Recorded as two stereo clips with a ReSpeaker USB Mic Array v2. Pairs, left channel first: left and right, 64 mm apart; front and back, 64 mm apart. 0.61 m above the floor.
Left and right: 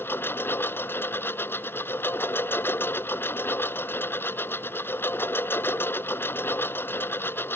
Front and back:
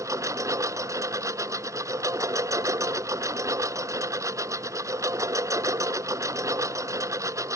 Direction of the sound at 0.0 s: 145° left.